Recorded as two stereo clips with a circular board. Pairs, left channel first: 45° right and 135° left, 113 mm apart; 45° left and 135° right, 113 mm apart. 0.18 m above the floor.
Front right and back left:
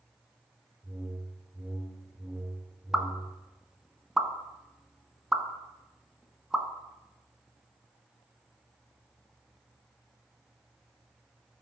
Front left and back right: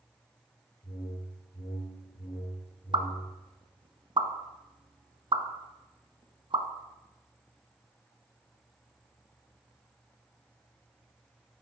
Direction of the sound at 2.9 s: 140° right.